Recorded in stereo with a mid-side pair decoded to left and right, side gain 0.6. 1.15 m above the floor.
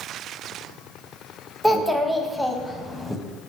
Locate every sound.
1.6 s a child speaking: straight ahead, 0.6 m